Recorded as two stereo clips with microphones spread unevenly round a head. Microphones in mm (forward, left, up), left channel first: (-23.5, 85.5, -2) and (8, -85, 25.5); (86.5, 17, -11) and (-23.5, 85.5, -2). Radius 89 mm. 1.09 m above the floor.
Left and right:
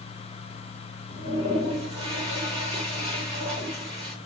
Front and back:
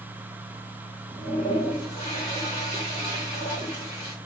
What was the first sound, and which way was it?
A toilet flushing, 140° right.